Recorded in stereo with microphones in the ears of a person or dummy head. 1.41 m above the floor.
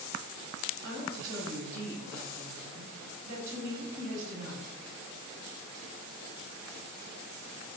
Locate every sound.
0.8 s a woman speaking: 65° right (ahead or behind), 1.6 m